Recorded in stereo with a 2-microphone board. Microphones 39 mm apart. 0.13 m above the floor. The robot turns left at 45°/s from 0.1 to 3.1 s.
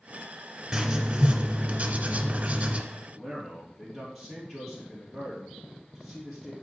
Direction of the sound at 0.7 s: 25° right.